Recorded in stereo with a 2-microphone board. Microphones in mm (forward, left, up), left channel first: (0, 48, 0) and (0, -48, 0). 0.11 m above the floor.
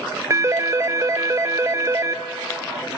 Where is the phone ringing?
35° right (ahead or behind), 1.0 m.